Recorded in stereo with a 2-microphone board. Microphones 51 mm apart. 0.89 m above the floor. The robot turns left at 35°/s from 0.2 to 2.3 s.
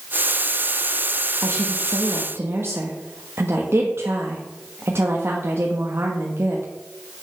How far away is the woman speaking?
About 1.3 m.